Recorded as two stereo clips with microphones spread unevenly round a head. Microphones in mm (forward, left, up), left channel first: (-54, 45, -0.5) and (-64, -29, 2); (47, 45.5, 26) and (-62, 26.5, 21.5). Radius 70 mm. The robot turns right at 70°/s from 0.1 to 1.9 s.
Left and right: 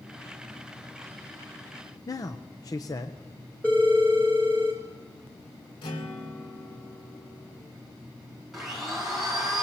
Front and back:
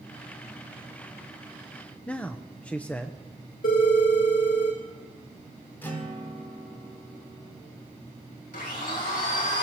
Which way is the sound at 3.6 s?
5° left.